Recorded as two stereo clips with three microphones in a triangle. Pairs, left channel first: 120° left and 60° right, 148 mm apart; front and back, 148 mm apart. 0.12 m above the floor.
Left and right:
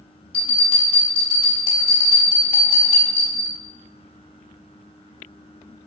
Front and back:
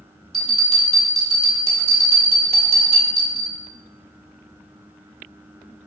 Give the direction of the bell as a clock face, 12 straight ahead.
5 o'clock.